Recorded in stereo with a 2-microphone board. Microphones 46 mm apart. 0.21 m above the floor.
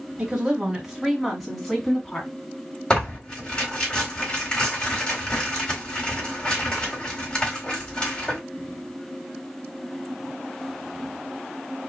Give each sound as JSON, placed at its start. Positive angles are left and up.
{"t": 0.2, "sound": "a woman speaking", "side_deg": -20, "distance_m": 1.9}
{"t": 2.9, "sound": "tearing paper", "side_deg": 20, "distance_m": 2.5}